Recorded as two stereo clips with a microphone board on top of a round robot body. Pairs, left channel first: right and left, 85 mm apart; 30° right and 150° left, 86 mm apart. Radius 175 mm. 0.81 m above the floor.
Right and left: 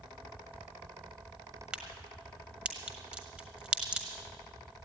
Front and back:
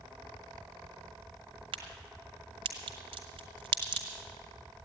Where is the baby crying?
No baby crying in this recording.